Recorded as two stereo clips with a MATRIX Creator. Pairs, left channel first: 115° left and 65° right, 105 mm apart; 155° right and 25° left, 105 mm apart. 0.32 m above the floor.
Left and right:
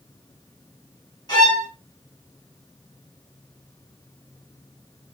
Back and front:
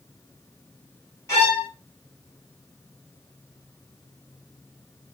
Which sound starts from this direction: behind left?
A violin, at 1.3 s.